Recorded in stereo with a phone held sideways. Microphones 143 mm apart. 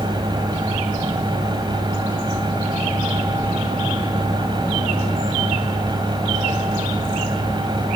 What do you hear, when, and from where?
0.0 s a fan: 30° right (ahead or behind), 2.5 m